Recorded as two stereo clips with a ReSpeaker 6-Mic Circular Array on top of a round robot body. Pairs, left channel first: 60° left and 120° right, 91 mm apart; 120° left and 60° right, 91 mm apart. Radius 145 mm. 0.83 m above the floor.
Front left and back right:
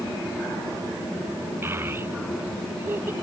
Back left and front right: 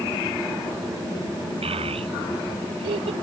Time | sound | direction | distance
1.6 | a child speaking | 55° right | ?